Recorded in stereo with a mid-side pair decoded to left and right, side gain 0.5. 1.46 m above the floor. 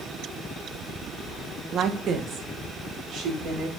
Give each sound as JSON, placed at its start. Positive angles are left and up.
{"t": 1.7, "sound": "a woman speaking", "azimuth_deg": -55, "distance_m": 1.2}